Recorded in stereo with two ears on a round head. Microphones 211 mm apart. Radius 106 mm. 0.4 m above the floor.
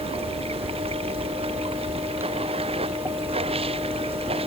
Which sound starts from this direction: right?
Running water, at 0.0 s.